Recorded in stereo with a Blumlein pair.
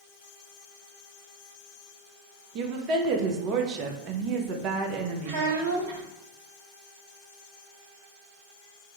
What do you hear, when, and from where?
2.5 s a woman speaking: 35° right, 0.6 m
5.2 s a child speaking: 55° right, 1.5 m